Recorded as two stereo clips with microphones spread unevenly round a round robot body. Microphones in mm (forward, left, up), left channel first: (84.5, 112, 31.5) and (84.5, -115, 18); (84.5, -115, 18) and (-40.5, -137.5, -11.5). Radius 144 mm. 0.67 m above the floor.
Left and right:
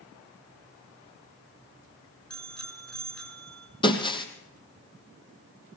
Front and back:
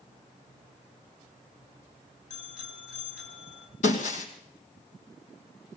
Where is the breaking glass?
20° left, 2.5 m.